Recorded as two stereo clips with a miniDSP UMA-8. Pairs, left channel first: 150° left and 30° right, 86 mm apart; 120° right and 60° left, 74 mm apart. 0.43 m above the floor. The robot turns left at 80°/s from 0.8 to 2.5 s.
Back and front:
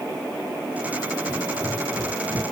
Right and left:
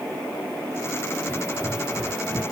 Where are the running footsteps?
110° left, 5 m; by 2.4 s 30° left, 6.5 m.